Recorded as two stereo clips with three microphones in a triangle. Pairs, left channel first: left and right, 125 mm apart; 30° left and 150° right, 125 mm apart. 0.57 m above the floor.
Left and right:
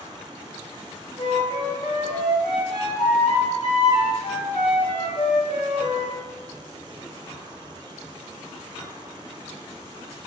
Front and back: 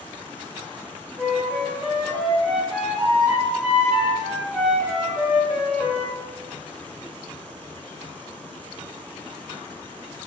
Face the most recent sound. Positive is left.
turn(degrees=120)